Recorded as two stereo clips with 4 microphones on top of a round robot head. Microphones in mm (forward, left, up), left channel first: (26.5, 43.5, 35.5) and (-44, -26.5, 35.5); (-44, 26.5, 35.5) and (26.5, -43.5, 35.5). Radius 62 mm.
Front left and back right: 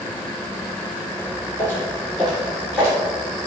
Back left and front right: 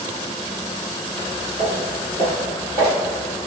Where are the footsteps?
95° left, 1.8 m; by 3.0 s 150° left, 2 m.